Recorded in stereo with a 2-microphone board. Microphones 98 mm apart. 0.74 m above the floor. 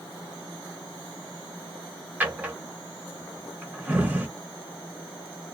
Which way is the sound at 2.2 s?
20° right (ahead or behind).